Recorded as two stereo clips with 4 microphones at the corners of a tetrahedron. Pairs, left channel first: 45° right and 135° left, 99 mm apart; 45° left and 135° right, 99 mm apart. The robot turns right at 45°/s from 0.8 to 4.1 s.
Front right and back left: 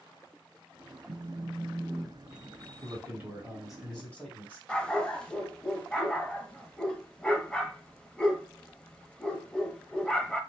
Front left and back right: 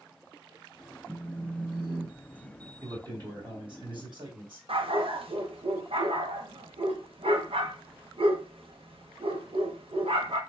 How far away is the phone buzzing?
About 0.6 m.